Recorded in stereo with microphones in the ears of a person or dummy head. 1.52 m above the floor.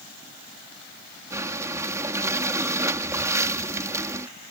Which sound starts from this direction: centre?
Breathing, at 1.3 s.